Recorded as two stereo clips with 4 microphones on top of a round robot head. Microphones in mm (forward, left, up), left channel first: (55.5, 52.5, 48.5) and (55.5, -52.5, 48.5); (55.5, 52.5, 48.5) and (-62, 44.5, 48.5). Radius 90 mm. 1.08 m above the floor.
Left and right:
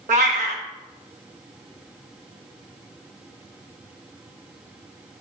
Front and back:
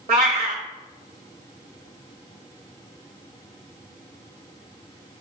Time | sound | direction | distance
0.1 | a cat meowing | 120° right | 0.6 m